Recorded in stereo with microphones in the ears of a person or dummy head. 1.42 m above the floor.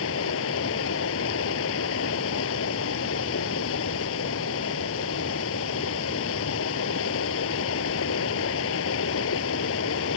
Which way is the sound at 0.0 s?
75° left (ahead or behind).